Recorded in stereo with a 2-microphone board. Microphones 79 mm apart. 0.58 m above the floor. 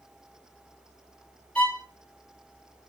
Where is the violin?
15° left (ahead or behind), 0.7 m.